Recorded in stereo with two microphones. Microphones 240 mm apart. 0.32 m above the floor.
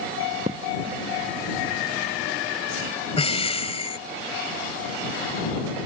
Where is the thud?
30° right (ahead or behind).